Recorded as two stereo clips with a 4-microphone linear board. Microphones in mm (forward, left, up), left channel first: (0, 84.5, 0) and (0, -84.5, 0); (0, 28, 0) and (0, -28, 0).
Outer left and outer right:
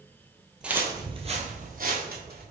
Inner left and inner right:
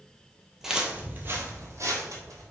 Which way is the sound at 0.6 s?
5° right (ahead or behind).